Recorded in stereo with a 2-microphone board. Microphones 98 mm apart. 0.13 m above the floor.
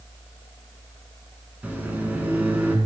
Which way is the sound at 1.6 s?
20° right (ahead or behind).